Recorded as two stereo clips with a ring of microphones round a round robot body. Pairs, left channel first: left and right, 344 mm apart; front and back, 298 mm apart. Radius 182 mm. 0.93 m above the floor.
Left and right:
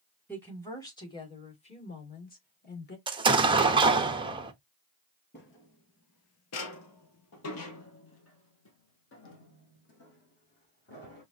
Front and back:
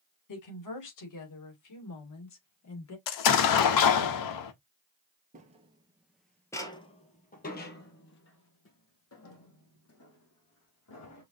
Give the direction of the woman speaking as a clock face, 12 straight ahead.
12 o'clock.